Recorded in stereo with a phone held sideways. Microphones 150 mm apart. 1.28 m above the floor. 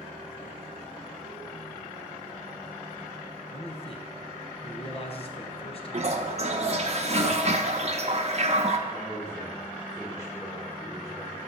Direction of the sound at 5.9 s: 45° right (ahead or behind).